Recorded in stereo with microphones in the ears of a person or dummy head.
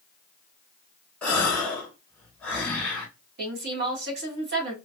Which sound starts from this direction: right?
A woman speaking, at 3.4 s.